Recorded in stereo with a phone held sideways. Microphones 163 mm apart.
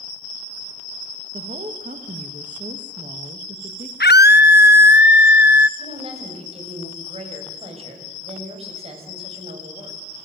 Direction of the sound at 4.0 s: 85° left.